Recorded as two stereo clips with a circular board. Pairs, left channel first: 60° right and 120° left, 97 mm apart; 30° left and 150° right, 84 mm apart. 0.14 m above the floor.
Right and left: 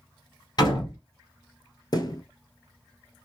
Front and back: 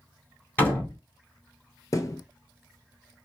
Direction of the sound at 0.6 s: 35° right.